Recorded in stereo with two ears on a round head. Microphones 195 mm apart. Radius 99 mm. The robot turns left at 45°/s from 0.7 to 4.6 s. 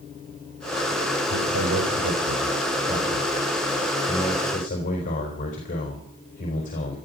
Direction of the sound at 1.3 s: 70° right.